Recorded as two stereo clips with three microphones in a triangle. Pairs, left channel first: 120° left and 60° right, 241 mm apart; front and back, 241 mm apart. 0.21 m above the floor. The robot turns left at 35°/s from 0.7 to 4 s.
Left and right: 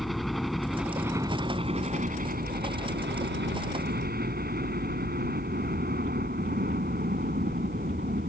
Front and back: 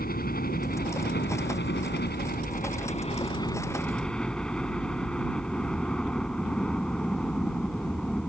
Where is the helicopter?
30° left; by 8.3 s 85° right.